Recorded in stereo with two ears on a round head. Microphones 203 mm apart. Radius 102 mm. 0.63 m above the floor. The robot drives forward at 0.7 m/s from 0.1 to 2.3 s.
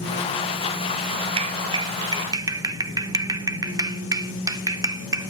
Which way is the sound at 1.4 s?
25° right (ahead or behind).